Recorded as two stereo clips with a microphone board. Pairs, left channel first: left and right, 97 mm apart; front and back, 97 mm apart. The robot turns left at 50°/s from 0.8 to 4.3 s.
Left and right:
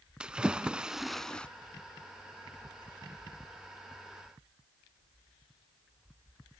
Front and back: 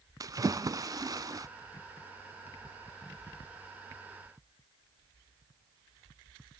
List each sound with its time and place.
0.2 s a splash: 165° right, 0.6 m; by 1.5 s 160° left, 0.6 m